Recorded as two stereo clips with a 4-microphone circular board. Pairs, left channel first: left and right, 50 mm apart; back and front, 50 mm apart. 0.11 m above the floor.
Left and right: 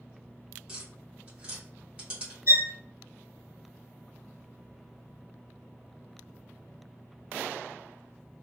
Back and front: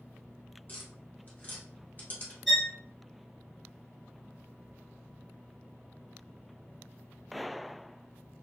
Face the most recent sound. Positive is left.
turn(degrees=-90)